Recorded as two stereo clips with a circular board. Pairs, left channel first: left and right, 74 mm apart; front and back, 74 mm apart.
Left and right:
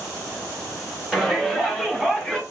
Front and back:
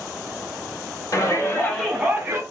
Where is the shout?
Straight ahead, 1.7 m; by 2.4 s 175° left, 1.3 m.